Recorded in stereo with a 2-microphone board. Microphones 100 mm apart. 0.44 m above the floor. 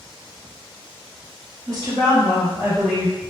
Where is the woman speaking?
40° right (ahead or behind), 1.5 m; by 3.2 s 5° right (ahead or behind), 1.1 m.